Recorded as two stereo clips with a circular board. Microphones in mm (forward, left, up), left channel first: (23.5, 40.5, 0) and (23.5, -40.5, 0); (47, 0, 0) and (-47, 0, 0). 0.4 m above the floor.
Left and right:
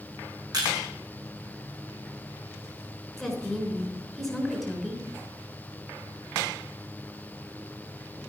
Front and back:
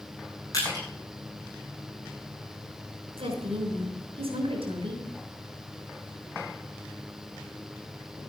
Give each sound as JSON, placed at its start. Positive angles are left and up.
{"t": 0.5, "sound": "crushing", "azimuth_deg": -50, "distance_m": 8.5}
{"t": 3.2, "sound": "a woman speaking", "azimuth_deg": 180, "distance_m": 5.0}